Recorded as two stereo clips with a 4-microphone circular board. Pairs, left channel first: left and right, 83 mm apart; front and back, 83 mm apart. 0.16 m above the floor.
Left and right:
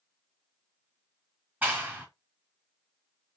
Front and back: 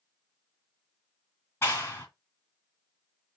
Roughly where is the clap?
Ahead right.